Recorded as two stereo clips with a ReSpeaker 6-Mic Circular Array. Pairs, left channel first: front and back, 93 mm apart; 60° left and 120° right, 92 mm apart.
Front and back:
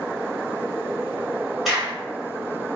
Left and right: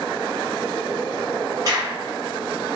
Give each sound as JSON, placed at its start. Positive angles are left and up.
{"t": 1.6, "sound": "a crack", "azimuth_deg": -95, "distance_m": 1.2}